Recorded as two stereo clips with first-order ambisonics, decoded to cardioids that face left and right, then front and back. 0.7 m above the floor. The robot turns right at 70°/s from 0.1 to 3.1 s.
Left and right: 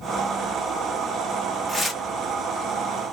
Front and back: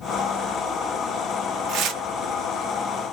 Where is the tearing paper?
175° left, 0.7 m; by 2.0 s 160° right, 0.7 m.